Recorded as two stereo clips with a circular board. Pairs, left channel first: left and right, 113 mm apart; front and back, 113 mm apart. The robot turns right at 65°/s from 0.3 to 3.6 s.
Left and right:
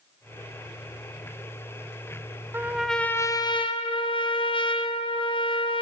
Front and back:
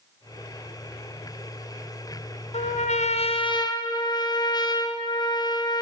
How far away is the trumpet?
About 0.6 m.